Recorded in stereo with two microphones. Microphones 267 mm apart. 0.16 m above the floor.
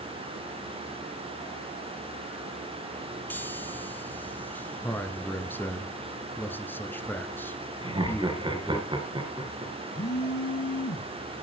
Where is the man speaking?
5° left (ahead or behind), 1.7 m.